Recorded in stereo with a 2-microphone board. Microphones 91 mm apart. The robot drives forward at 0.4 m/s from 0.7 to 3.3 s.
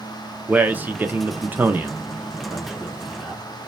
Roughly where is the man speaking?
Centre.